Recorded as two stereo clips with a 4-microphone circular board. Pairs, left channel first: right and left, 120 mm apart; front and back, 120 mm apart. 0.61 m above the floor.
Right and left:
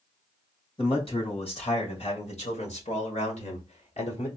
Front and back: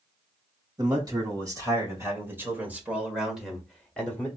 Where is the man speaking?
125° right, 2.5 m; by 4.3 s 75° right, 1.7 m.